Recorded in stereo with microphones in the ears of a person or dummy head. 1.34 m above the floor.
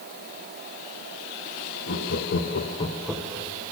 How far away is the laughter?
About 1.7 m.